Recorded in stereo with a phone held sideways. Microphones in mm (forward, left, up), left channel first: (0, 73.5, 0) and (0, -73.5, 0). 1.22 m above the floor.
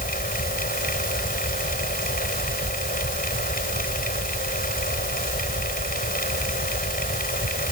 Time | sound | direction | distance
0.0 | a fan | 80° left | ?